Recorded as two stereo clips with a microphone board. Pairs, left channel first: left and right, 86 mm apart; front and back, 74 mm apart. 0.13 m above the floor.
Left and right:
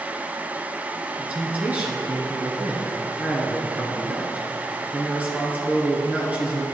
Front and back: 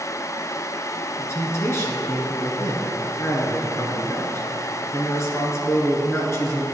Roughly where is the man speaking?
Ahead right.